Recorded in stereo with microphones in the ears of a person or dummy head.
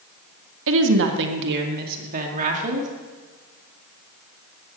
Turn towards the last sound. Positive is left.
turn(degrees=-40)  # may be behind; listen again after turning